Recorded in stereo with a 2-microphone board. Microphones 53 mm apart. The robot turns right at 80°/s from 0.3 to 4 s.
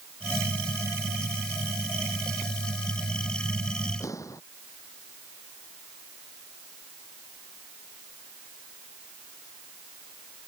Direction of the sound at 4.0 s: 75° left (ahead or behind).